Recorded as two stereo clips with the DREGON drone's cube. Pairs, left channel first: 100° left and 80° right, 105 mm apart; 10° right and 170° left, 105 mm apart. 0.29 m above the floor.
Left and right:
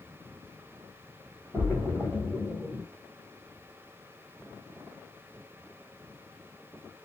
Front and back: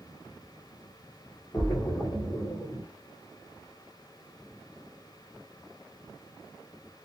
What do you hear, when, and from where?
1.5 s a splash: 15° right, 1.5 m